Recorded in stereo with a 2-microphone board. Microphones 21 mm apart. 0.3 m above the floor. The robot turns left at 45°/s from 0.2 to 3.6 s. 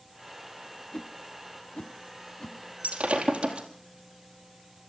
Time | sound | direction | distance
0.9 | a whoosh | 40° left (ahead or behind) | 0.8 m
2.8 | breaking glass | 80° right | 3.5 m